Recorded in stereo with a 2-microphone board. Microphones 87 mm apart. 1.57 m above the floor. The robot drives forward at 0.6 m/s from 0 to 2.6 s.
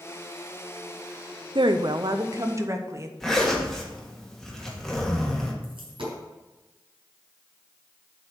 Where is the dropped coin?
75° right (ahead or behind), 4 m.